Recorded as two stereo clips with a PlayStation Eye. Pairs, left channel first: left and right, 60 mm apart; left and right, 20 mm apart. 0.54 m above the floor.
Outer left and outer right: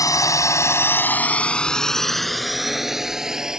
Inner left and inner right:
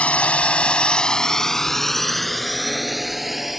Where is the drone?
75° left (ahead or behind); by 3.6 s 10° right (ahead or behind).